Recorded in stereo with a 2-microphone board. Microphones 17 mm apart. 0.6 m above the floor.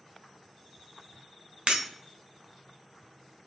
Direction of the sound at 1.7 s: 85° right.